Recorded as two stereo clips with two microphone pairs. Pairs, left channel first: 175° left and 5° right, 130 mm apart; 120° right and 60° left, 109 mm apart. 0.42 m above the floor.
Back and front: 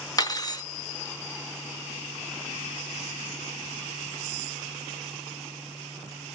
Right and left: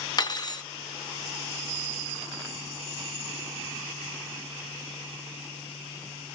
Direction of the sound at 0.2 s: 145° right.